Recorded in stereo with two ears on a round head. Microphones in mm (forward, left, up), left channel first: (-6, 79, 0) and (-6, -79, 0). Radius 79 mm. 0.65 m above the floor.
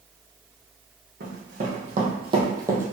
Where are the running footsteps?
50° right (ahead or behind), 1.5 m; by 2.9 s 10° right (ahead or behind), 0.9 m.